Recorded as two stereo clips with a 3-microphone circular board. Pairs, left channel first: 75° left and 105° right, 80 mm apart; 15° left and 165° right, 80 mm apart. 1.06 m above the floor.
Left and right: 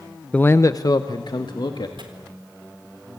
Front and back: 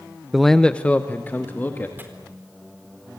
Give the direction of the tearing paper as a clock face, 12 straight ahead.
3 o'clock.